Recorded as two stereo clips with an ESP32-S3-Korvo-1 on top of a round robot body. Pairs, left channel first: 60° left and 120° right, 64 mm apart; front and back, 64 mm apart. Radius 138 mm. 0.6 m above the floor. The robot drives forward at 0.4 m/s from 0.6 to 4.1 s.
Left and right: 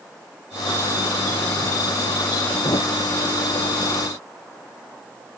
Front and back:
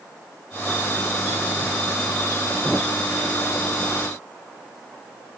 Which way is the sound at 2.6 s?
75° left.